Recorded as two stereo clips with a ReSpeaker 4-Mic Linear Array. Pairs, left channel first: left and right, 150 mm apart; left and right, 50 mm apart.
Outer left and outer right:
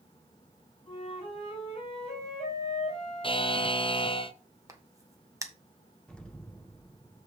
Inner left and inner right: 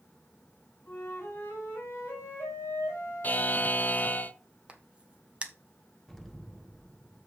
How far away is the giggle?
No giggle in this recording.